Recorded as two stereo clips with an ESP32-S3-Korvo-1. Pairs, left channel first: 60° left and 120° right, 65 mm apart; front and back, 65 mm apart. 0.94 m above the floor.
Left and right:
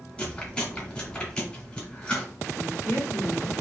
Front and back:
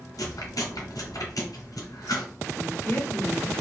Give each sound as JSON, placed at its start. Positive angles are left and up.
{"t": 0.2, "sound": "chewing", "azimuth_deg": -15, "distance_m": 2.5}
{"t": 2.5, "sound": "a woman speaking", "azimuth_deg": 45, "distance_m": 2.5}